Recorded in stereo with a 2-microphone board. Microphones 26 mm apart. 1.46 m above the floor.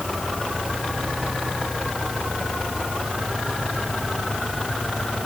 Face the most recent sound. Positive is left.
No sound to turn to.